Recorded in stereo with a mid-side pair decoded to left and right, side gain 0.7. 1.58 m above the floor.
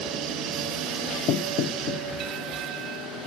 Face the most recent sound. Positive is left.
turn(degrees=55)